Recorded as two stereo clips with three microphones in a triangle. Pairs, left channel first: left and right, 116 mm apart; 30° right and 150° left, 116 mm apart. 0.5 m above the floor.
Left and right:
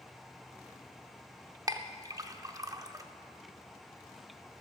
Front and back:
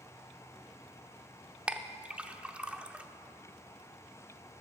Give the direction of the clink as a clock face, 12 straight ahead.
4 o'clock.